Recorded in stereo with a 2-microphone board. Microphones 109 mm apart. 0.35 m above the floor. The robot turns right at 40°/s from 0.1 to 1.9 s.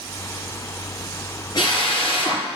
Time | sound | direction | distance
1.6 | a drill | 45° left (ahead or behind) | 5 m